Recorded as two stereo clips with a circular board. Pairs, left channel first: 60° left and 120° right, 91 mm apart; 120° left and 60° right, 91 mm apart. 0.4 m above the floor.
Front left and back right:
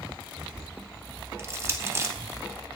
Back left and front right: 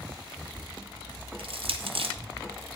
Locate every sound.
1.4 s crushing: 60° right, 0.9 m